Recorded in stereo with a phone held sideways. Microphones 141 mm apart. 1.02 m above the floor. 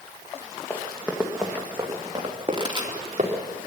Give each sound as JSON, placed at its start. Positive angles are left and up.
{"t": 0.7, "sound": "running footsteps", "side_deg": 15, "distance_m": 3.0}
{"t": 2.5, "sound": "a pop", "side_deg": -30, "distance_m": 2.5}